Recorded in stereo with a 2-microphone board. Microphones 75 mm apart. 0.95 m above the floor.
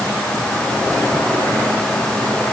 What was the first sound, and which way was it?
Only background noise.